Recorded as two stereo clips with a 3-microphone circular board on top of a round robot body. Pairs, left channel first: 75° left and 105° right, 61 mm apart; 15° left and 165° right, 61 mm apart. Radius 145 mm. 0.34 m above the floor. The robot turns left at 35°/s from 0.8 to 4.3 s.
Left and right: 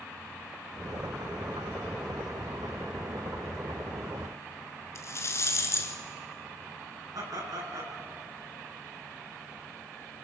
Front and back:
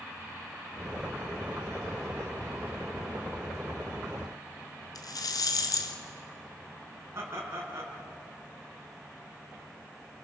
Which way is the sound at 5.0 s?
30° left.